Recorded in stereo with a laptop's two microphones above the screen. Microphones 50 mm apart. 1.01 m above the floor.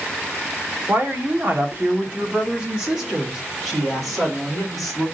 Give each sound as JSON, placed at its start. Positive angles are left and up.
{"t": 0.9, "sound": "a woman speaking", "side_deg": -45, "distance_m": 1.3}